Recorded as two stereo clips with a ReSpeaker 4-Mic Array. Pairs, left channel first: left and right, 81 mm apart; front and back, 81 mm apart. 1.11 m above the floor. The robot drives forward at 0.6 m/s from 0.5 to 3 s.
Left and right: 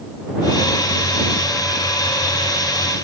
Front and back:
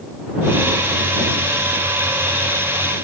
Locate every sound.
Only background noise.